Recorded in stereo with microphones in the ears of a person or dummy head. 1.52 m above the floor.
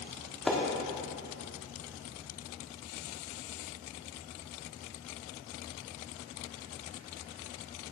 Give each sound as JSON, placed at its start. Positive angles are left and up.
{"t": 0.5, "sound": "a splash", "side_deg": 0, "distance_m": 1.3}